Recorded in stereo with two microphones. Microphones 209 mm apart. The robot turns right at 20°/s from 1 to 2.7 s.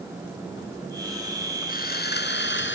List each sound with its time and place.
1.7 s sawing: 45° left (ahead or behind); by 2.8 s 65° left (ahead or behind)